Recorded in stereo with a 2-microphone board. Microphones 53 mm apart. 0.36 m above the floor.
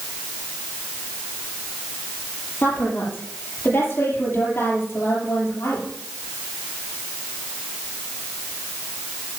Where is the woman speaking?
45° left (ahead or behind), 8.5 m; by 5.9 s 55° left (ahead or behind), 7.5 m.